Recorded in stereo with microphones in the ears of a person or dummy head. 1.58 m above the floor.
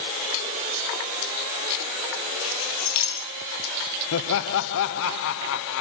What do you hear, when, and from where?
2.4 s keys jangling: 80° left, 8 m
4.1 s laughter: 70° left (ahead or behind), 0.9 m